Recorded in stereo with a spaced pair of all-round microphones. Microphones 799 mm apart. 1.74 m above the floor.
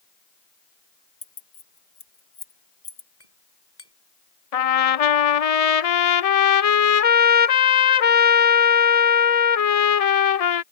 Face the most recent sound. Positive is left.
turn(degrees=50)  # may be behind; listen again after turning